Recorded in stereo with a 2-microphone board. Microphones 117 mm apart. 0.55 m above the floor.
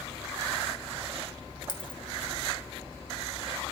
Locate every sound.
1.7 s a dropped coin: 45° left (ahead or behind), 0.9 m